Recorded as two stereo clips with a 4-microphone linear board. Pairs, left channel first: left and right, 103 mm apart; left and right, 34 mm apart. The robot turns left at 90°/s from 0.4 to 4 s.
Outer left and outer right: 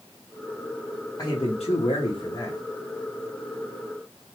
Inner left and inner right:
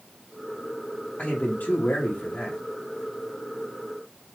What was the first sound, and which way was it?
A man speaking, 145° left.